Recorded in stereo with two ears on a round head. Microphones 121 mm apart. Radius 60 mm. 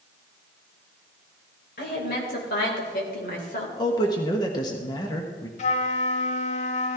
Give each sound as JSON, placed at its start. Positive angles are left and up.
{"t": 1.8, "sound": "a woman speaking", "side_deg": 75, "distance_m": 4.0}
{"t": 3.8, "sound": "a man speaking", "side_deg": 30, "distance_m": 1.3}
{"t": 5.6, "sound": "a flute", "side_deg": 55, "distance_m": 1.2}